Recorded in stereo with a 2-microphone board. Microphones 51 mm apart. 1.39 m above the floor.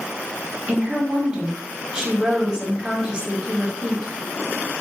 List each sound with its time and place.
0.7 s a woman speaking: 20° right (ahead or behind), 0.8 m